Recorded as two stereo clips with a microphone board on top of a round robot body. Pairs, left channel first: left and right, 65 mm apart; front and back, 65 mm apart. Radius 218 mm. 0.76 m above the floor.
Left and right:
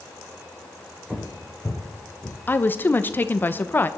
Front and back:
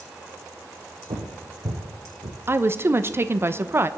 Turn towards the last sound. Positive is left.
turn(degrees=140)